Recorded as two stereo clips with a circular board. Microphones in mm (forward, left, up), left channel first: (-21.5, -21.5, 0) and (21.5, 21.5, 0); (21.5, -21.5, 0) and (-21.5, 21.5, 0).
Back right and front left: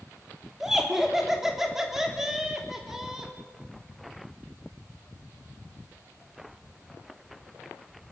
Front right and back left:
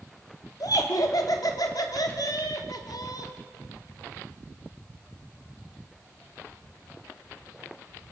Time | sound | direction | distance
0.6 | laughter | 40° right | 3.5 m